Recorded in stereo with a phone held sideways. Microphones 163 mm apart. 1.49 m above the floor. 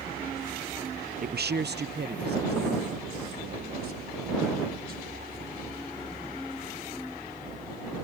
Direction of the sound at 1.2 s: 55° right (ahead or behind).